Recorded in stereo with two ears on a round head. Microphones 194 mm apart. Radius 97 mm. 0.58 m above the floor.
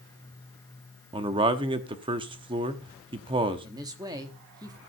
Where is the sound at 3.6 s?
20° right (ahead or behind), 1.2 m.